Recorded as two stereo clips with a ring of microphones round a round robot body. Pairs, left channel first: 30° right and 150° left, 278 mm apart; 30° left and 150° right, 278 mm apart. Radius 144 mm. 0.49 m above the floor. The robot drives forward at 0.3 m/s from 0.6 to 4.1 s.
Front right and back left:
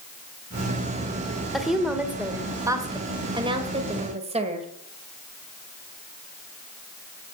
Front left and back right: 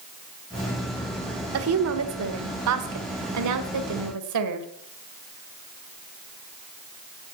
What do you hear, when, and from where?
1.5 s a woman speaking: 120° right, 1.4 m; by 4.7 s 140° right, 1.9 m